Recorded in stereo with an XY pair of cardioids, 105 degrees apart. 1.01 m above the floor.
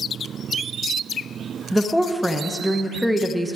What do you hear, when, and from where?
1.7 s a woman speaking: straight ahead, 0.8 m